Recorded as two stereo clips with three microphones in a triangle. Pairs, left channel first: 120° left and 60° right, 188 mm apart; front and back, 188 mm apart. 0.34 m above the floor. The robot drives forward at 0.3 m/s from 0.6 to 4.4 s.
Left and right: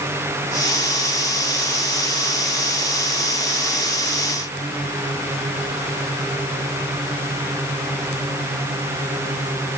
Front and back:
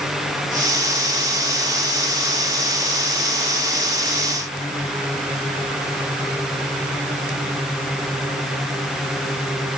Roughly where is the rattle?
No rattle in this recording.